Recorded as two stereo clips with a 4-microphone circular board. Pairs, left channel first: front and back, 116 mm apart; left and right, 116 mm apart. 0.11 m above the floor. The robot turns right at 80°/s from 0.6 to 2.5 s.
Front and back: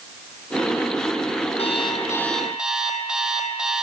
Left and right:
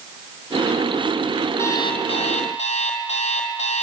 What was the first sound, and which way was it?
An alarm clock, 20° left.